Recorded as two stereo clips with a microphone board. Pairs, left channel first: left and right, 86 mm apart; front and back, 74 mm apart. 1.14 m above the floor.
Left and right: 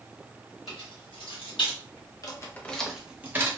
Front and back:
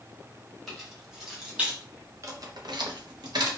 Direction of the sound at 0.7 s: 90° left.